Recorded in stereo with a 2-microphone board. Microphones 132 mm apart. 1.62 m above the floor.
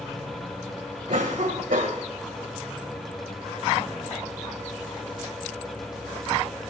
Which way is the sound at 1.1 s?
80° right.